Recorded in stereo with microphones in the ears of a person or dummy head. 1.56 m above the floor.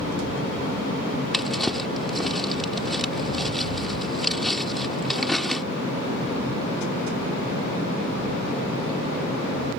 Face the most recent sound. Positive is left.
turn(degrees=5)  # may be behind; listen again after turning